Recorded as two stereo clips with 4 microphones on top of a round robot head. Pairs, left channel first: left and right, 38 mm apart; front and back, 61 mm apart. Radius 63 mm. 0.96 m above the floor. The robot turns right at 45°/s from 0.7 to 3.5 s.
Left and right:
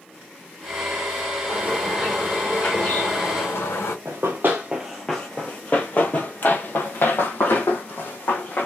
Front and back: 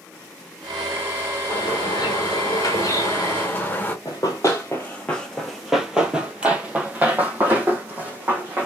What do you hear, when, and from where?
1.5 s a bird: 25° right, 1.5 m; by 4.0 s 65° left, 1.5 m
4.0 s running footsteps: 45° right, 1.1 m; by 8.7 s 120° left, 2.5 m